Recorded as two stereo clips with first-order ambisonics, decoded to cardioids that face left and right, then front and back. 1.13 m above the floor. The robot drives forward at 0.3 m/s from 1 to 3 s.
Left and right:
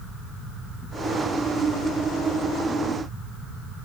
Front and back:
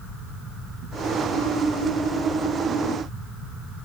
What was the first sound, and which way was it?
Only background noise.